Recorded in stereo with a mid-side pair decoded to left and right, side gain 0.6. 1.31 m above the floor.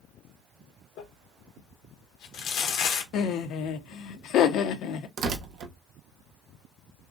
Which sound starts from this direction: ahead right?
Tearing paper, at 5.2 s.